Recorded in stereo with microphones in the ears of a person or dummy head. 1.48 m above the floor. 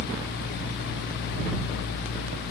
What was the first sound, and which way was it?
Only background noise.